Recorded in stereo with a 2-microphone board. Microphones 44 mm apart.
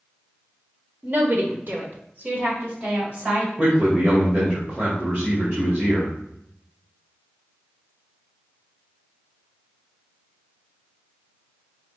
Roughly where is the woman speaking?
Right.